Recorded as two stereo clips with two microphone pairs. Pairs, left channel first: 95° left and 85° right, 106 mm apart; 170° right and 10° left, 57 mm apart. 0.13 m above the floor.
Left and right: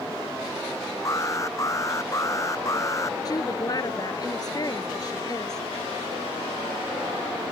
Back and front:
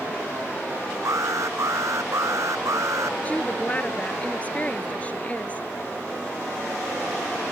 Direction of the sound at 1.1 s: 35° left.